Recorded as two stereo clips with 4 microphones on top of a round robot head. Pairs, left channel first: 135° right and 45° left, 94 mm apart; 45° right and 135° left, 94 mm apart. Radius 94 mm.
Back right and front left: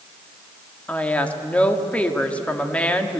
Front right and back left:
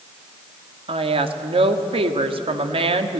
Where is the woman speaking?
150° left, 2 m.